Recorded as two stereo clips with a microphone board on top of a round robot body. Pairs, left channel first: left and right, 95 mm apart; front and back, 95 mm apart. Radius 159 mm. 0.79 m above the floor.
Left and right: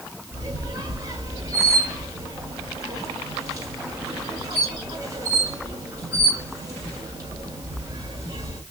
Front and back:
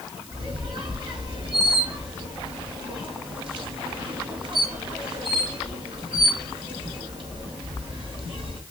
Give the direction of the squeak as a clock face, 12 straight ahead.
5 o'clock.